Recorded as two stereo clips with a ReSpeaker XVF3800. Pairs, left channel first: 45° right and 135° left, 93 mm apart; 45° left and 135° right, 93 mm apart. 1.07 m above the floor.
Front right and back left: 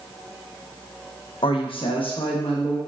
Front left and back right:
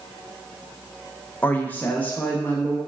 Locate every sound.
1.4 s a woman speaking: 25° right, 0.5 m